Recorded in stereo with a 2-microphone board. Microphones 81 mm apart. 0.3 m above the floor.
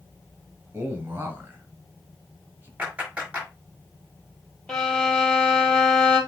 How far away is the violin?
About 3 m.